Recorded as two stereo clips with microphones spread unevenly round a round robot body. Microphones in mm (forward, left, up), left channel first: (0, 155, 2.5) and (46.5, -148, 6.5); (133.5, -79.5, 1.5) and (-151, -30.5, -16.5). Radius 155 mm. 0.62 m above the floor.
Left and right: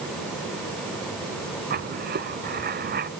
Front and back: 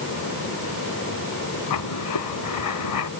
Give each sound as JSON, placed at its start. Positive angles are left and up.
{"t": 1.7, "sound": "writing", "azimuth_deg": -20}